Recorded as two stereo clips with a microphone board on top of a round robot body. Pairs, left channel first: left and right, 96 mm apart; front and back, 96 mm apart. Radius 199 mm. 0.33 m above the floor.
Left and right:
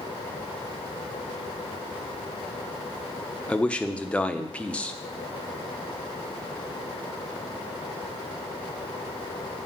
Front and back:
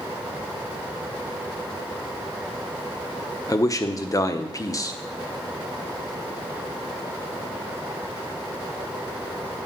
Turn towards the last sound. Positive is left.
turn(degrees=20)